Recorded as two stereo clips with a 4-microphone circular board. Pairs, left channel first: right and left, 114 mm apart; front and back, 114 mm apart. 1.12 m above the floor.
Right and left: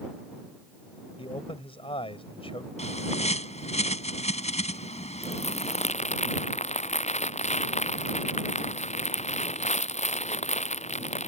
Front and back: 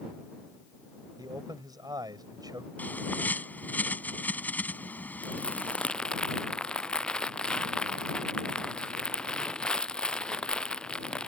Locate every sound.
1.2 s a man speaking: 125° right
2.8 s a bird: 75° right
5.2 s crumpling: 80° right